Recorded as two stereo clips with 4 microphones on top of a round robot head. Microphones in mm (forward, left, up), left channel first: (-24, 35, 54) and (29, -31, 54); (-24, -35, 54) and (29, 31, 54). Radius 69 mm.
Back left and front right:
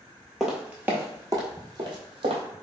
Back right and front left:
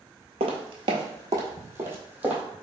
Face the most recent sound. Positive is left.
turn(degrees=-25)